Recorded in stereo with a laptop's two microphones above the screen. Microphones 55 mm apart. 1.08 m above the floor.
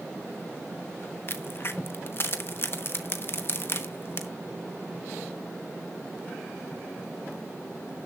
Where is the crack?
45° left (ahead or behind), 1.0 m.